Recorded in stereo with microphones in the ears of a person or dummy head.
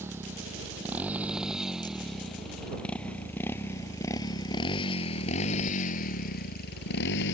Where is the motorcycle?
10° right (ahead or behind); by 7.3 s 65° left (ahead or behind).